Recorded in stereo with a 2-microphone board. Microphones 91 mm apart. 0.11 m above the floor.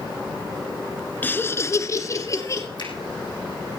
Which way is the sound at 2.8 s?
60° left (ahead or behind).